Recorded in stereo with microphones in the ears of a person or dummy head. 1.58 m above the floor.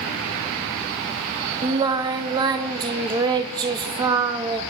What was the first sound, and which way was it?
Singing, 20° right (ahead or behind).